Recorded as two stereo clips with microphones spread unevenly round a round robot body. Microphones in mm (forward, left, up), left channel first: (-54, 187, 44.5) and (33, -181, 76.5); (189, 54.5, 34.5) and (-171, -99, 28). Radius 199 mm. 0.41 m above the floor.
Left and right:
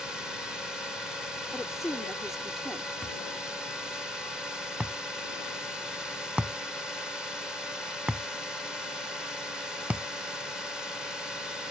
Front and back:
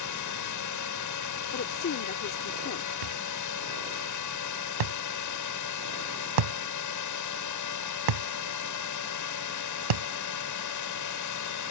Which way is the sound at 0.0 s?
15° left.